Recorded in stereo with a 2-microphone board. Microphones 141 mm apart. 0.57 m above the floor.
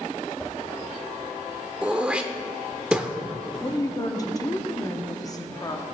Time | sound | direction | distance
0.4 | a whoosh | 10° left (ahead or behind) | 1.0 m
1.8 | throat clearing | 10° right (ahead or behind) | 0.6 m
3.6 | a woman speaking | 25° left (ahead or behind) | 0.7 m